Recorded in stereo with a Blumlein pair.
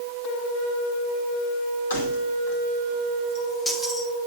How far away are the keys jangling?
About 2.5 m.